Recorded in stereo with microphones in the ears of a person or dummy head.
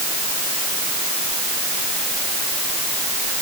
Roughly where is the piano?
I don't hear a piano.